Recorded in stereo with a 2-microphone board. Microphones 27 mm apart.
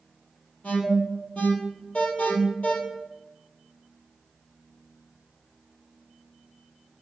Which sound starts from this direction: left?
An alarm, at 0.6 s.